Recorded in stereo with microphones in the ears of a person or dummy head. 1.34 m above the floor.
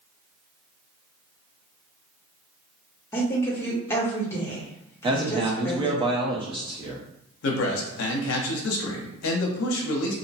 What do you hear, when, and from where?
3.1 s a woman speaking: 10° left (ahead or behind), 0.9 m
5.0 s a man speaking: 30° right (ahead or behind), 0.6 m
7.4 s a man speaking: 70° left (ahead or behind), 0.6 m